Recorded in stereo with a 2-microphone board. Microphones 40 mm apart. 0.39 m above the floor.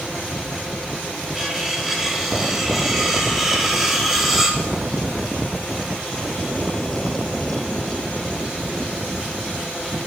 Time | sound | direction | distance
1.4 | cutlery clinking | 10° right (ahead or behind) | 2 m